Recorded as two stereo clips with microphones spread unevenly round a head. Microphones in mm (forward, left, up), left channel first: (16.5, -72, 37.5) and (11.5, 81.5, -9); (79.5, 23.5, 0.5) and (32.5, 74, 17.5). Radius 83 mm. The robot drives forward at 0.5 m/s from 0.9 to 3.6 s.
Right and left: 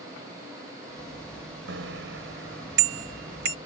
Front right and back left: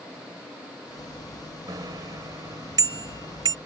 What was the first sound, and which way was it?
A bicycle bell, 110° left.